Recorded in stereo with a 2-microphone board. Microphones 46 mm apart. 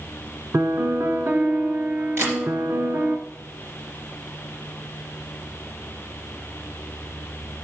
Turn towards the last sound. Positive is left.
turn(degrees=-65)  # may be behind; listen again after turning